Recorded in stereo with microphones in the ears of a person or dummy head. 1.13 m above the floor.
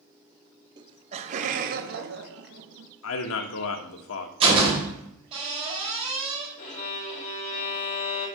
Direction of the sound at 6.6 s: 45° left (ahead or behind).